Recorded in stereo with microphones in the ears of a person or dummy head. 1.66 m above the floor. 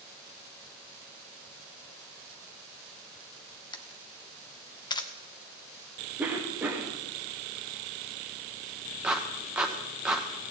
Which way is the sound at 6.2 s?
10° right (ahead or behind).